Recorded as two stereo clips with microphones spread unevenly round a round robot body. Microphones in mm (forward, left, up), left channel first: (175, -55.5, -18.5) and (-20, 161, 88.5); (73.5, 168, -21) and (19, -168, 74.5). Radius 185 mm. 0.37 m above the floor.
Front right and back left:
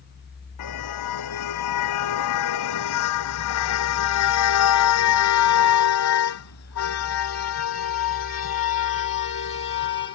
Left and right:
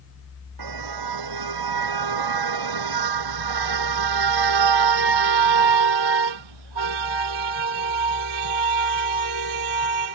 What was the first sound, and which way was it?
A car horn, 75° right.